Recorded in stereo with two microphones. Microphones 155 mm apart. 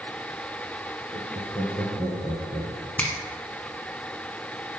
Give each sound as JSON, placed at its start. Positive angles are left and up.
{"t": 1.1, "sound": "laughter", "side_deg": 10, "distance_m": 2.5}
{"t": 3.0, "sound": "a finger snap", "side_deg": 10, "distance_m": 1.2}